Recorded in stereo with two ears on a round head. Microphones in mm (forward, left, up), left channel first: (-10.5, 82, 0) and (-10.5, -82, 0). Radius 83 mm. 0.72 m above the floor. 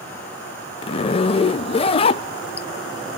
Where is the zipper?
30° left (ahead or behind), 0.5 m.